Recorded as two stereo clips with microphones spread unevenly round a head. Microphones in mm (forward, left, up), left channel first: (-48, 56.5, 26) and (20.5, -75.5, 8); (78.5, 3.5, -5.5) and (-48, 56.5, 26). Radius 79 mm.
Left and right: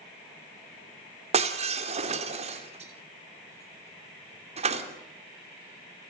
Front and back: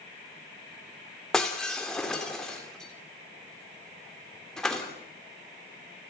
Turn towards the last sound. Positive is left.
turn(degrees=-110)